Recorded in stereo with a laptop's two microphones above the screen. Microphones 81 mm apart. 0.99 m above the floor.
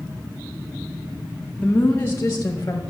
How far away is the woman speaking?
About 0.6 m.